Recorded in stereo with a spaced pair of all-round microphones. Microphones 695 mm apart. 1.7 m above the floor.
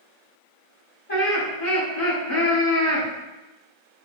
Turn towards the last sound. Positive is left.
turn(degrees=60)  # may be behind; listen again after turning